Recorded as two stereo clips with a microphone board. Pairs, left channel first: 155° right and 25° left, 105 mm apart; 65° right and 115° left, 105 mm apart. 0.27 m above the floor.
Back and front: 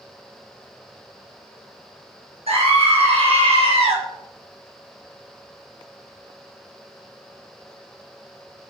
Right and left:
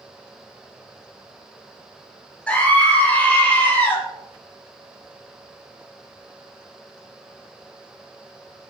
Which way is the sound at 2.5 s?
10° left.